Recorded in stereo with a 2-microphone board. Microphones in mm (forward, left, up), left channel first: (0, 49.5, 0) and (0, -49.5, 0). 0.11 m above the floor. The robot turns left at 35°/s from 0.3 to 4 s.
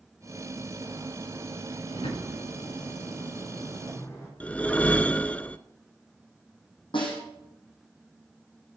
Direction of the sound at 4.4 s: 15° left (ahead or behind).